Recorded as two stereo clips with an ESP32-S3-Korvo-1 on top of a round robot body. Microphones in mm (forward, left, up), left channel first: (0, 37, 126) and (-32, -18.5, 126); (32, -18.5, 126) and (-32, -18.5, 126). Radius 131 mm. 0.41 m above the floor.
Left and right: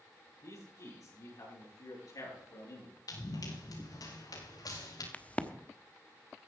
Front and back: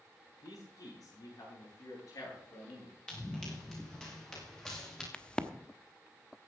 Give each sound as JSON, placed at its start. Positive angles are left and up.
{"t": 0.4, "sound": "a man speaking", "azimuth_deg": 25, "distance_m": 9.5}
{"t": 3.1, "sound": "running footsteps", "azimuth_deg": 80, "distance_m": 6.0}
{"t": 5.1, "sound": "a crack", "azimuth_deg": 45, "distance_m": 1.3}